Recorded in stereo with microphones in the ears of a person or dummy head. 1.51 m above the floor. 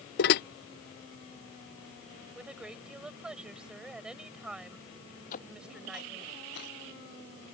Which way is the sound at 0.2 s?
50° left (ahead or behind).